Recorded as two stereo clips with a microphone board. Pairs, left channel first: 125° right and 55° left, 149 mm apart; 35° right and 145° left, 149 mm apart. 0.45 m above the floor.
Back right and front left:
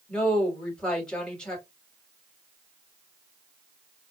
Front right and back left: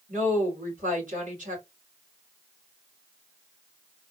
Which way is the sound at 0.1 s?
150° left.